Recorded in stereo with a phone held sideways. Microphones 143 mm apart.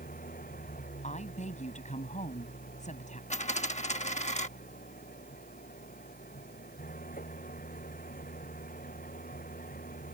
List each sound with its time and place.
0.0 s an engine running: 80° left
1.0 s a woman speaking: 55° left (ahead or behind)
3.3 s a dropped coin: 55° left (ahead or behind)